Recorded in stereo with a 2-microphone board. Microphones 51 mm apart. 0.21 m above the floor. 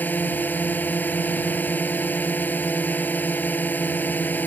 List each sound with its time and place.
0.0 s a drone: 40° left (ahead or behind)